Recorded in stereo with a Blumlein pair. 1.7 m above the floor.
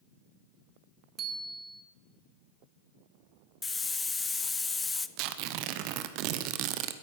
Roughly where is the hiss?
Ahead.